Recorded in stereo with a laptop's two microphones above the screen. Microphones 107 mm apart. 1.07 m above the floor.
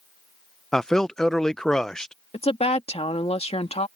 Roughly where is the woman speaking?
Left.